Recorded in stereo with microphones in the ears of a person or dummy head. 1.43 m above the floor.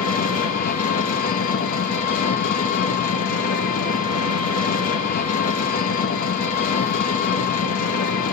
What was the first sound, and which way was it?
An engine running, 50° left (ahead or behind).